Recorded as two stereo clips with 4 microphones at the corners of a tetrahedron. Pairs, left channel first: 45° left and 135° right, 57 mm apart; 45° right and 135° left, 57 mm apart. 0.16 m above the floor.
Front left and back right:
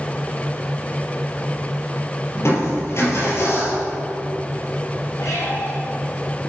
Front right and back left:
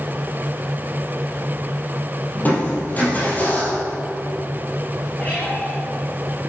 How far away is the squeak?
About 2 m.